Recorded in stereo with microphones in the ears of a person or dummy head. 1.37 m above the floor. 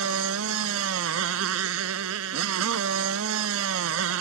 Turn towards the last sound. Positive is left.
turn(degrees=-85)